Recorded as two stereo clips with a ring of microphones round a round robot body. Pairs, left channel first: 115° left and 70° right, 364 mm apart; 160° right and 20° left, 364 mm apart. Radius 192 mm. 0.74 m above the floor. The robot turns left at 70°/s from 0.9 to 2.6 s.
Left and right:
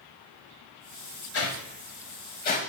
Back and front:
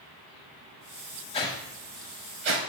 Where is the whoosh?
140° left, 0.6 m; by 2.6 s 50° left, 0.6 m.